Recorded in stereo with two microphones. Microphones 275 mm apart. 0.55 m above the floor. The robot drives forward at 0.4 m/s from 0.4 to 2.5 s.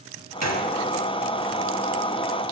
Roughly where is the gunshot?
Right.